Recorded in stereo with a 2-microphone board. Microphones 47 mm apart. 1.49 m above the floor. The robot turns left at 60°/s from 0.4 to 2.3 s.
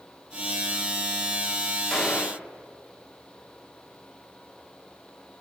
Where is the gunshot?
5° left (ahead or behind), 1.4 m; by 2.5 s 25° left (ahead or behind), 1.4 m.